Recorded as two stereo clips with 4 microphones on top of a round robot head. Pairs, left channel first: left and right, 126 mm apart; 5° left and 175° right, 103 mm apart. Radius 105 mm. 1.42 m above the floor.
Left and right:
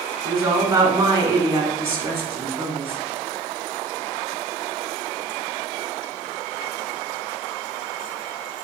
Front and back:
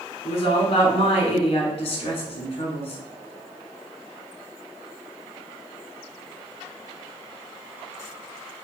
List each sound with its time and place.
0.2 s a woman speaking: 35° right, 1.0 m